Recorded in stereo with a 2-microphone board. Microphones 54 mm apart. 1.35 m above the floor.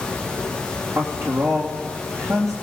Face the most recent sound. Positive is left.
turn(degrees=-80)